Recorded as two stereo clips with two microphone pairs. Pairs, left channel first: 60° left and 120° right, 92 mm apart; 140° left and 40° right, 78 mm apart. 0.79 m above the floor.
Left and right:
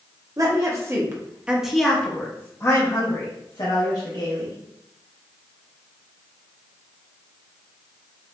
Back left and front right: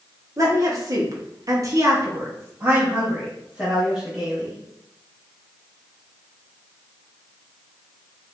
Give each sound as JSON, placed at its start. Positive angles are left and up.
{"t": 0.4, "sound": "a woman speaking", "azimuth_deg": -75, "distance_m": 1.1}